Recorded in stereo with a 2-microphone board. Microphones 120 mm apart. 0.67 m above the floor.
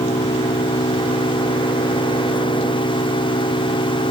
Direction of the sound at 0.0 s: 70° left (ahead or behind).